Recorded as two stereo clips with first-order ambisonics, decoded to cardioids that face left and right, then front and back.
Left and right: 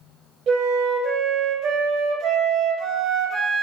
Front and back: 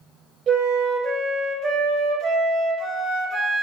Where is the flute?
125° right, 0.6 m.